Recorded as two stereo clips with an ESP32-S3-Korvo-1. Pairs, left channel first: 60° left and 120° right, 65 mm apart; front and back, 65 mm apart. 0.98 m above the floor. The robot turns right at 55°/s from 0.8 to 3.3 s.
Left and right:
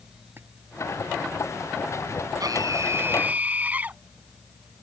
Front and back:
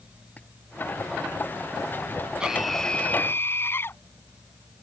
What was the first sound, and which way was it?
A splash, 65° right.